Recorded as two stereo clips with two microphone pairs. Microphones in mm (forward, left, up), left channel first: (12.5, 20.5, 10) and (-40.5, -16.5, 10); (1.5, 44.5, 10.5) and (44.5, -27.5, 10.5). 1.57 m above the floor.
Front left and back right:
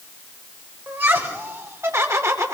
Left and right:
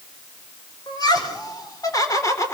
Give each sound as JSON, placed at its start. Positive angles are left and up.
{"t": 0.9, "sound": "laughter", "azimuth_deg": 160, "distance_m": 5.0}